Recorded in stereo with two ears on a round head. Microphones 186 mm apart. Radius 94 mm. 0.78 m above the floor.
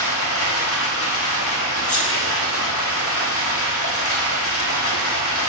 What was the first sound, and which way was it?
Running water, 70° left (ahead or behind).